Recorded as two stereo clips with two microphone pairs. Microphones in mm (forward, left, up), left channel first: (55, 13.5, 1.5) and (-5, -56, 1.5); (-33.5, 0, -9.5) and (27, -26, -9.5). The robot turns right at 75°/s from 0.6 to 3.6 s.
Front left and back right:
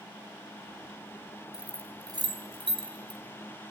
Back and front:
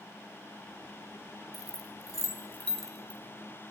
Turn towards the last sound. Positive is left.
turn(degrees=-60)